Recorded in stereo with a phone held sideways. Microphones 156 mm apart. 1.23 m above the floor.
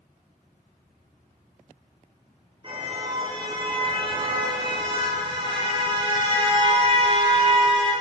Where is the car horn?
35° right (ahead or behind), 9.5 m.